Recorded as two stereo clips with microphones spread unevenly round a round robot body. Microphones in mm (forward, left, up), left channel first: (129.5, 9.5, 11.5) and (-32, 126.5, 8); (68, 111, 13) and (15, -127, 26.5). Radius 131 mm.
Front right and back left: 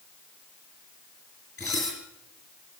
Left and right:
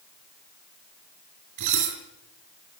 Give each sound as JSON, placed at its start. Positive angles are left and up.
{"t": 1.6, "sound": "dishes clattering", "azimuth_deg": -115, "distance_m": 4.0}